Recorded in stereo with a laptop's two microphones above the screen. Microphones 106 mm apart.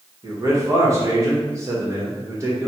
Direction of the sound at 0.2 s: 30° right (ahead or behind).